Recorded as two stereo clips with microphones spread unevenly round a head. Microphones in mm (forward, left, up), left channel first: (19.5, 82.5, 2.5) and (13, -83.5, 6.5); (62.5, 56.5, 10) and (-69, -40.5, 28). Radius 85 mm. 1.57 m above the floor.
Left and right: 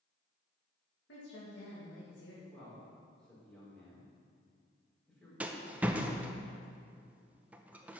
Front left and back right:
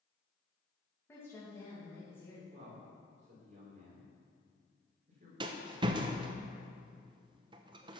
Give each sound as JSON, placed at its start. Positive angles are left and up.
{"t": 1.1, "sound": "a woman speaking", "azimuth_deg": 115, "distance_m": 2.5}
{"t": 2.5, "sound": "a man speaking", "azimuth_deg": 175, "distance_m": 4.0}
{"t": 5.4, "sound": "a rattle", "azimuth_deg": -165, "distance_m": 0.6}